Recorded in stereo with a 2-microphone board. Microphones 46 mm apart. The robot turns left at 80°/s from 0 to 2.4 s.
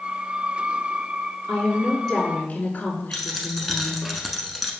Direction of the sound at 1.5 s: 140° right.